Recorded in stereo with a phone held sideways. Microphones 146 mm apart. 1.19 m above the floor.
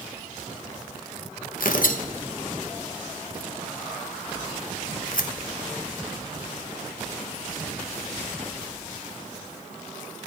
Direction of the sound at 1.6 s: 70° left (ahead or behind).